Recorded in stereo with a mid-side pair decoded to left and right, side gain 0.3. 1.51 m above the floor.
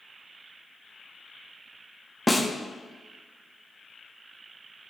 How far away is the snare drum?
About 0.9 m.